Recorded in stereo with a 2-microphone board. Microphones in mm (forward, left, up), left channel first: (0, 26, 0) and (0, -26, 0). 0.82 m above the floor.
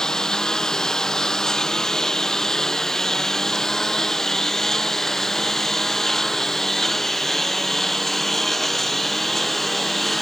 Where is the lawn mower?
10° left (ahead or behind); by 10.2 s 5° left (ahead or behind).